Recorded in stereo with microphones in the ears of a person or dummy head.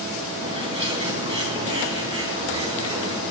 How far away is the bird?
About 3 m.